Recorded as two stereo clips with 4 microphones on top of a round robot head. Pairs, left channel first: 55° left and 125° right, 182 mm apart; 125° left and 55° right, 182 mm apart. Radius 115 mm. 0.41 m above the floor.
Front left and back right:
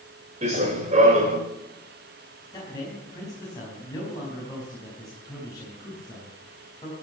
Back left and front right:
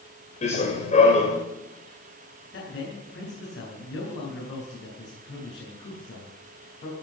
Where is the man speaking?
120° left, 4.5 m.